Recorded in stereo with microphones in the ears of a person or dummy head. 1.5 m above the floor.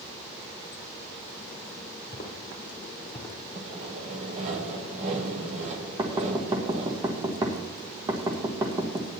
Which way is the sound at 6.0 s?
20° right (ahead or behind).